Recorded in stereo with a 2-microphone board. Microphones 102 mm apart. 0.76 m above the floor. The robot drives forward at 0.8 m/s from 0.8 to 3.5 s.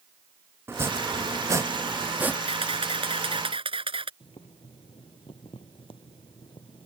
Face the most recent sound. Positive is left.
turn(degrees=60)  # may be behind; listen again after turning